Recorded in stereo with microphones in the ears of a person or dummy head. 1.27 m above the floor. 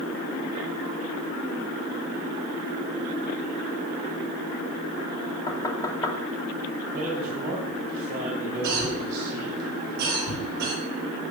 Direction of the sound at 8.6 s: 50° right (ahead or behind).